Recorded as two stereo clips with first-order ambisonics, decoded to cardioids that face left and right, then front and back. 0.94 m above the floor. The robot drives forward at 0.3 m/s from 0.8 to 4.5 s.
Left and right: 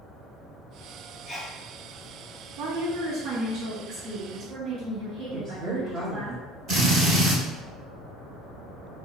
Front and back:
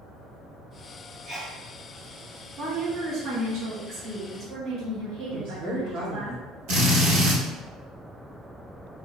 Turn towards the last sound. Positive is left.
turn(degrees=-155)